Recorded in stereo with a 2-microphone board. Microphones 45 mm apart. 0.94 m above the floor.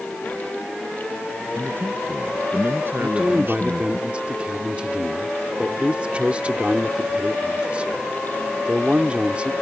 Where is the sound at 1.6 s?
55° right (ahead or behind); by 4.0 s 50° right (ahead or behind).